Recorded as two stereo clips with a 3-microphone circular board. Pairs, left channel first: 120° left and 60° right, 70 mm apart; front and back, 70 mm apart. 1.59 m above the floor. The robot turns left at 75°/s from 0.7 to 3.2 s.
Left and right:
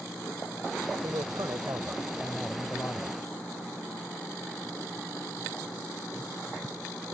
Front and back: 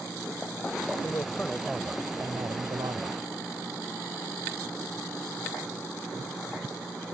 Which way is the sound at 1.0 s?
40° right.